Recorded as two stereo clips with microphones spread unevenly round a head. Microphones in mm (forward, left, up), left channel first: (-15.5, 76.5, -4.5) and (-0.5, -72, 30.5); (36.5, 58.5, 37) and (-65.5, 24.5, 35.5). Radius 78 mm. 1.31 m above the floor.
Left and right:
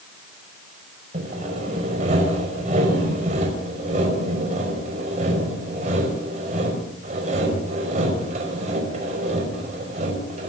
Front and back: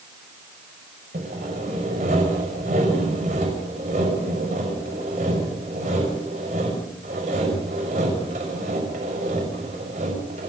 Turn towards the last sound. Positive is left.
turn(degrees=-125)